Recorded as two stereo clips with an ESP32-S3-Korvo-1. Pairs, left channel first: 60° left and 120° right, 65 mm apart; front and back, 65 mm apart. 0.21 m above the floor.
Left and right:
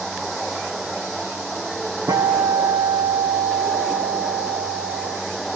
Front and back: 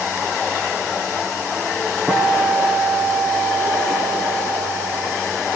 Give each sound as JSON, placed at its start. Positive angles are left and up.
{"t": 2.1, "sound": "a guitar", "azimuth_deg": -110, "distance_m": 1.8}